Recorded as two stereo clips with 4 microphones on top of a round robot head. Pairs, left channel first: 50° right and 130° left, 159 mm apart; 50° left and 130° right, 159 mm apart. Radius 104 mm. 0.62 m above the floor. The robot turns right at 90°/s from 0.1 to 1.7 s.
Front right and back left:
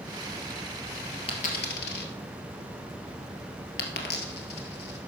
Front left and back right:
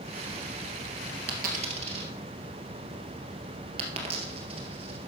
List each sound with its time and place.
1.3 s a dropped coin: 105° right, 1.9 m; by 5.0 s 70° right, 1.9 m